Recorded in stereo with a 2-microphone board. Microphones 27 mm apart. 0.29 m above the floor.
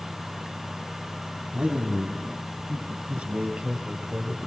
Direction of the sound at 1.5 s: 55° right (ahead or behind).